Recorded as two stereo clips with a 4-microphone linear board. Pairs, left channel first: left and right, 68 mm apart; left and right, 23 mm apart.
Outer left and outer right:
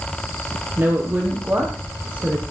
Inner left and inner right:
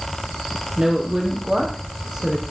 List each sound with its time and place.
0.8 s a woman speaking: 30° right (ahead or behind), 5 m; by 2.4 s 20° right (ahead or behind), 6 m